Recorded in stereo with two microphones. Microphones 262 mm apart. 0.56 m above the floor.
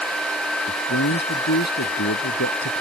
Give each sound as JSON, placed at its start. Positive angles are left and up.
{"t": 0.7, "sound": "a man speaking", "side_deg": 85}